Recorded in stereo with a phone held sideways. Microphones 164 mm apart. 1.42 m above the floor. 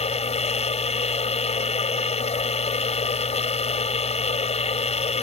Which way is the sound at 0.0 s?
40° left (ahead or behind).